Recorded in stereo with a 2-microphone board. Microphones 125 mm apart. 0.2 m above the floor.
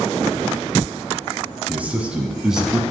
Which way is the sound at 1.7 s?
15° right (ahead or behind).